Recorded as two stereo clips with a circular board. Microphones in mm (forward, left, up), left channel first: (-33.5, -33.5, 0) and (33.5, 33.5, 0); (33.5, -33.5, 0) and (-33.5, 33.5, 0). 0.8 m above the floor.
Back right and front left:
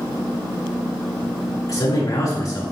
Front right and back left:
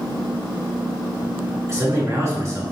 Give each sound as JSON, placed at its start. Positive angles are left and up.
{"t": 1.7, "sound": "a man speaking", "azimuth_deg": -175, "distance_m": 2.5}